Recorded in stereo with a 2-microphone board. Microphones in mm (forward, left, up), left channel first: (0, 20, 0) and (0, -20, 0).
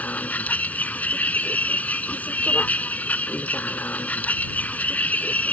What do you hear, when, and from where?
0.0 s a vehicle: 40° left (ahead or behind)